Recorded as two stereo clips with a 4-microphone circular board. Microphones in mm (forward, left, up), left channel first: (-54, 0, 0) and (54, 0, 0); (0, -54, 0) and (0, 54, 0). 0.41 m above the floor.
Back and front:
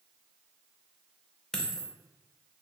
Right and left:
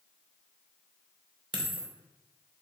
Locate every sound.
1.5 s a dropped coin: 95° left, 0.5 m